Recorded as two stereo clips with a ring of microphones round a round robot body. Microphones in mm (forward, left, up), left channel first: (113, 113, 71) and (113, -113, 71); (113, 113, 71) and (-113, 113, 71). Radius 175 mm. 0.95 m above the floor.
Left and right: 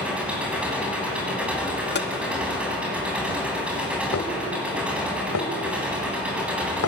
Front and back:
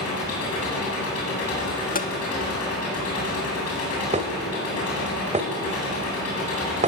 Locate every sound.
0.0 s an engine running: 5° right, 8 m
1.9 s tapping: 50° left, 1.6 m
4.1 s dishes clattering: 120° left, 3 m